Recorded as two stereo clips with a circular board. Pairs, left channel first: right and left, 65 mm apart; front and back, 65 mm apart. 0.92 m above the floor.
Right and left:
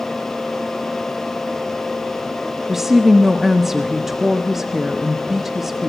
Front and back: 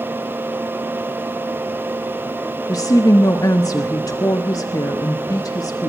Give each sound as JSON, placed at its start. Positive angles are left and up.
{"t": 2.7, "sound": "a woman speaking", "azimuth_deg": 5, "distance_m": 1.3}